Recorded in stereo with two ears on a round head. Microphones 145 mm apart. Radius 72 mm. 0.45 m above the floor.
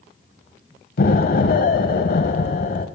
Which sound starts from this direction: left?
An explosion, at 1.0 s.